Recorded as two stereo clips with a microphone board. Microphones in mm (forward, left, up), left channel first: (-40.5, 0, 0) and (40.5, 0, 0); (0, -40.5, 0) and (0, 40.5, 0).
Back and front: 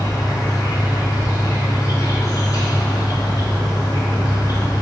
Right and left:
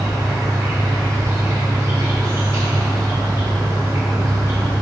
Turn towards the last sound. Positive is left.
turn(degrees=140)